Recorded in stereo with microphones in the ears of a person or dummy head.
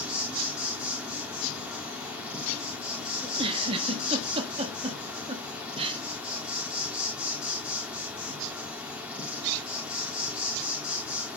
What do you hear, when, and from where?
0.0 s an insect: 5° right (ahead or behind), 1.3 m
3.2 s a giggle: 30° right (ahead or behind), 1.4 m